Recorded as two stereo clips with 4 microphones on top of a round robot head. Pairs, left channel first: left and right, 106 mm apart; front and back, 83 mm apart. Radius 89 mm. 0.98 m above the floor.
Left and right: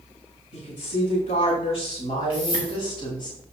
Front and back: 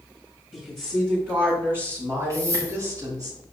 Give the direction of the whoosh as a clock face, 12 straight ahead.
8 o'clock.